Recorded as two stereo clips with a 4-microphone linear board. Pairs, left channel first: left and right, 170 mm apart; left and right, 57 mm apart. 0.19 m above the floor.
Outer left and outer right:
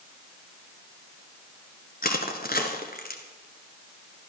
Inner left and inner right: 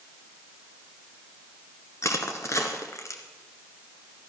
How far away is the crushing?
About 1.6 m.